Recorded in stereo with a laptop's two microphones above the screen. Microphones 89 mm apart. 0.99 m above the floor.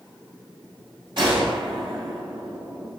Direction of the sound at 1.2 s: 60° right (ahead or behind).